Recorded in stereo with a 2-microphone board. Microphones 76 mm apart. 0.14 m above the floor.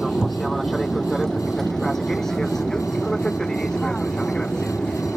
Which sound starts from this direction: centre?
An aircraft, at 0.0 s.